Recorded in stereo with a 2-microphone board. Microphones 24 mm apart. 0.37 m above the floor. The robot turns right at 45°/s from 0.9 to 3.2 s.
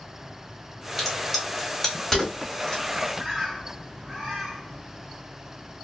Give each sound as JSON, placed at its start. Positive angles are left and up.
{"t": 1.0, "sound": "a crack", "side_deg": -10, "distance_m": 1.4}
{"t": 3.2, "sound": "a bird", "side_deg": -10, "distance_m": 1.4}